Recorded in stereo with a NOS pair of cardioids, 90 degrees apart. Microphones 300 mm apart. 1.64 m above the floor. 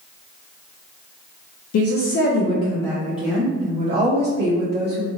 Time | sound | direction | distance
1.7 | a woman speaking | 60° left | 0.7 m